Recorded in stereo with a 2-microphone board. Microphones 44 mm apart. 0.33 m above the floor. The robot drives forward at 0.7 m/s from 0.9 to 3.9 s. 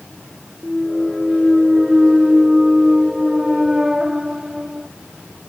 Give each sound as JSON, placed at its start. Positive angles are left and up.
{"t": 0.6, "sound": "a clunk", "side_deg": -5}